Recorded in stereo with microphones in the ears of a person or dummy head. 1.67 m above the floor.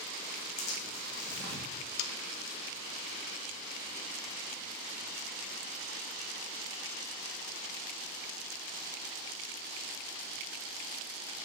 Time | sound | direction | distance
0.6 | tearing paper | 65° left (ahead or behind) | 3 m
2.0 | sawing | 70° left (ahead or behind) | 0.7 m